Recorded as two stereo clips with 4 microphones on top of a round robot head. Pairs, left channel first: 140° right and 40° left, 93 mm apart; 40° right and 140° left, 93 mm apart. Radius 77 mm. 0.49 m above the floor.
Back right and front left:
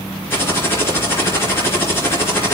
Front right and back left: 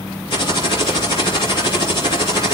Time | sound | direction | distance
0.3 | typing on a keyboard | 75° right | 3.5 m